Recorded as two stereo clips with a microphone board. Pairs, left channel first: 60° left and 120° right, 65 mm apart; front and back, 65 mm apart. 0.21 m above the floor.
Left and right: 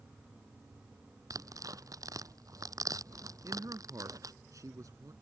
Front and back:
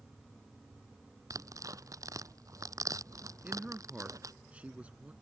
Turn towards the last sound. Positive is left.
turn(degrees=-115)